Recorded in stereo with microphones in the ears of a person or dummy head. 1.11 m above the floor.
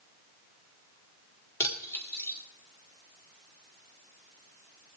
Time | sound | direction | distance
1.6 | cutlery clinking | 15° left (ahead or behind) | 1.8 m